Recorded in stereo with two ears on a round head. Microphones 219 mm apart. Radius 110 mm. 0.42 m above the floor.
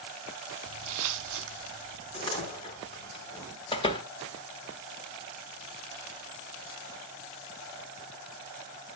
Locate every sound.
0.7 s footsteps: 55° right (ahead or behind), 0.6 m; by 3.1 s 35° right (ahead or behind), 1.7 m
2.1 s a door slam: 20° left (ahead or behind), 3 m
3.7 s a door slam: 20° left (ahead or behind), 1.0 m